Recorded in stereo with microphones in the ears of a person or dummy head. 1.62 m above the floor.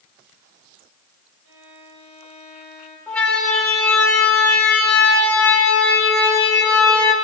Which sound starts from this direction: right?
A violin, at 1.4 s.